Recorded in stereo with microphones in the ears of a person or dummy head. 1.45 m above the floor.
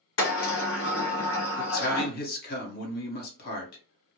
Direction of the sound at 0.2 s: 65° left (ahead or behind).